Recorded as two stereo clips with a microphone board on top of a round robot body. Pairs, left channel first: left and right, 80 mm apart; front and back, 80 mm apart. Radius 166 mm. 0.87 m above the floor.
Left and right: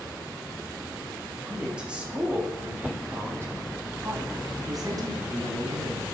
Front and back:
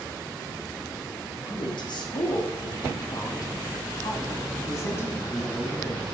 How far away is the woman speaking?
About 3 m.